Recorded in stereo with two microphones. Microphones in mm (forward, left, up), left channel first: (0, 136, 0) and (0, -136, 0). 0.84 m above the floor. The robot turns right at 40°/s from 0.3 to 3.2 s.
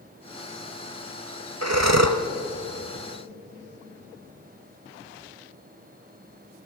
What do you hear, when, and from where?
1.6 s breathing: 65° right (ahead or behind), 1.2 m; by 2.2 s 70° right (ahead or behind), 1.2 m